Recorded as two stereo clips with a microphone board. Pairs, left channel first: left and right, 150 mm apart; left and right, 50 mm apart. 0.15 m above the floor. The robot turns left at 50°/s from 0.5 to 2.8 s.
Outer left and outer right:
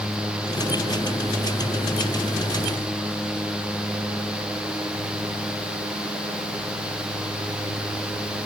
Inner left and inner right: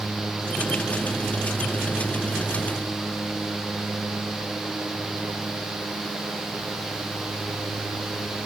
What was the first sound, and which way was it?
Only background noise.